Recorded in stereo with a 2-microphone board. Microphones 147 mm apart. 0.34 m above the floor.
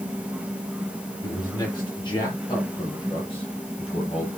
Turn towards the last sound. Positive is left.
turn(degrees=40)  # may be behind; listen again after turning